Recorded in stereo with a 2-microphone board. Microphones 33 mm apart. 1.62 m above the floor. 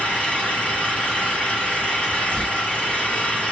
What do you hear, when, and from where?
0.0 s an engine running: 45° left (ahead or behind), 2 m
2.3 s tearing paper: 35° left (ahead or behind), 1.7 m